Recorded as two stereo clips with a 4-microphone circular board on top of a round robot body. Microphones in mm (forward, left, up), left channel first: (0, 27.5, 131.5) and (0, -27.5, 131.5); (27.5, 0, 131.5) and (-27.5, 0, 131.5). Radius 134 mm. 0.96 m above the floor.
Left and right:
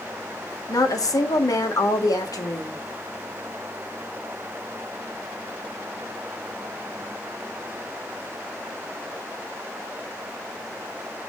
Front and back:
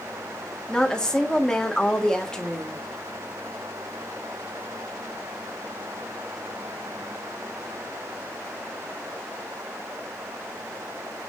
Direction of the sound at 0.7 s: 75° left.